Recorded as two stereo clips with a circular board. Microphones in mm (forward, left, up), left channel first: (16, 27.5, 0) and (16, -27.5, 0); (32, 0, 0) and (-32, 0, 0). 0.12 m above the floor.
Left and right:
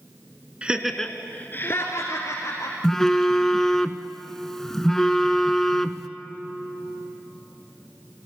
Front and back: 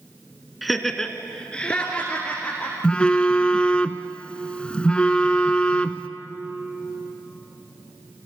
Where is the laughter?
95° right, 1.3 m; by 2.7 s 70° left, 3 m.